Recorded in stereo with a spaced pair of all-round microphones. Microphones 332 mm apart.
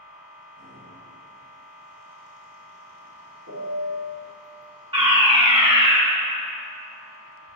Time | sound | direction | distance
0.0 | a machine running | 70° right (ahead or behind) | 2.5 m
3.5 | a piano | 75° right (ahead or behind) | 2 m
4.9 | a fire alarm | 15° right (ahead or behind) | 1.4 m